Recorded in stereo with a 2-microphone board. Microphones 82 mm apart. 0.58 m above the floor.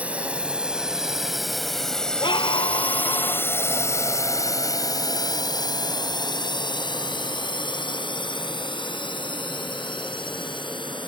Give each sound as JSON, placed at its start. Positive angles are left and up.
{"t": 0.0, "sound": "a drone", "side_deg": -15}
{"t": 2.2, "sound": "a scream", "side_deg": 75}